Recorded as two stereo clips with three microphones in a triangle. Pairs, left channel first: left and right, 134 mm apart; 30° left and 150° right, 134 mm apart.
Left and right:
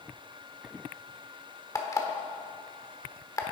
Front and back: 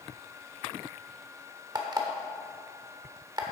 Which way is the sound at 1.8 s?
155° left.